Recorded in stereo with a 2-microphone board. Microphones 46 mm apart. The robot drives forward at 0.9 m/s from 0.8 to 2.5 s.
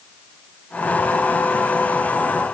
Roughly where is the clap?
I don't hear a clap.